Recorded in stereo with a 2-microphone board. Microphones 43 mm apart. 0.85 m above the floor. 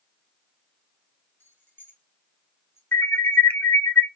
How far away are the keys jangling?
About 4 m.